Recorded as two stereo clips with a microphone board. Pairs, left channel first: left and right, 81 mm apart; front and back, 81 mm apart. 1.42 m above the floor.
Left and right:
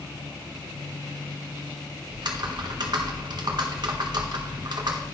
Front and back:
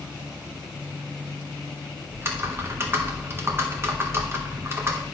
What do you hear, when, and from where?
2.1 s typing on a keyboard: 120° right, 1.2 m